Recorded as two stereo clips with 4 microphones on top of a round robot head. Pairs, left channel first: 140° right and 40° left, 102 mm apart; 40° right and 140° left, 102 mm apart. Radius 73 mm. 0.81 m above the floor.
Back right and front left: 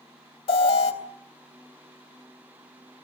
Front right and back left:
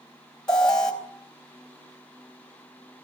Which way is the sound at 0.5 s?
120° right.